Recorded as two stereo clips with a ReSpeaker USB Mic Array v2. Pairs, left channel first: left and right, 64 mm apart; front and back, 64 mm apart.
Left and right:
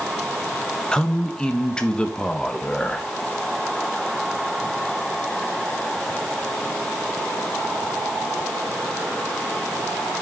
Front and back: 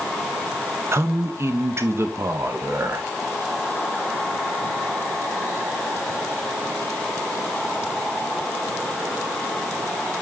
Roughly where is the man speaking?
Behind.